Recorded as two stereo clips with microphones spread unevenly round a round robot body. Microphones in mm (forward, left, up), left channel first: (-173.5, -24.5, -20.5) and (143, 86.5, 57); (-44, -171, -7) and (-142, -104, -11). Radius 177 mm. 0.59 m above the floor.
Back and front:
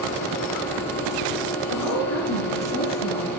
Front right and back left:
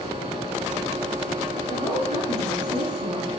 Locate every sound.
1.7 s a woman speaking: 150° left, 5.5 m; by 3.3 s 140° left, 5.5 m